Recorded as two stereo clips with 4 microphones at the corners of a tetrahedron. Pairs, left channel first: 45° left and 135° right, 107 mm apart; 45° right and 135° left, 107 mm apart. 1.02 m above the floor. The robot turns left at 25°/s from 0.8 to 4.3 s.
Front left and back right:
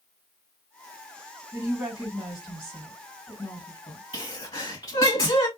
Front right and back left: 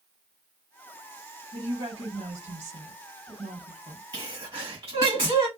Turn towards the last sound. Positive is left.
turn(degrees=85)